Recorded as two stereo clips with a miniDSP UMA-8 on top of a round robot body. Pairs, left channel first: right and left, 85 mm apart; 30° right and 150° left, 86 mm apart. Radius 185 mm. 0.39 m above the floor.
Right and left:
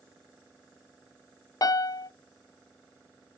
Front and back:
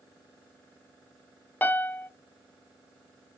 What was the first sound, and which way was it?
A piano, 90° right.